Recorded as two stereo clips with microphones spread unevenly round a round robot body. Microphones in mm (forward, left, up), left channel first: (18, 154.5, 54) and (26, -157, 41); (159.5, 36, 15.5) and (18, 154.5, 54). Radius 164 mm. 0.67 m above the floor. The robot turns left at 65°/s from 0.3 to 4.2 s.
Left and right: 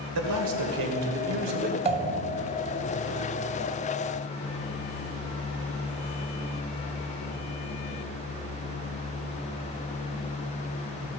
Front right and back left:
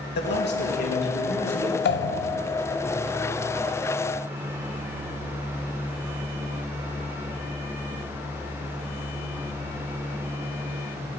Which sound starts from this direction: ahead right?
A man speaking, at 0.1 s.